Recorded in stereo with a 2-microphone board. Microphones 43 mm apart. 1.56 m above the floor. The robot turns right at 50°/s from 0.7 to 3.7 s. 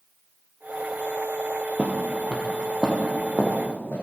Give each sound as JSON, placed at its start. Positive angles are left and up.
{"t": 1.8, "sound": "footsteps", "side_deg": -35, "distance_m": 2.0}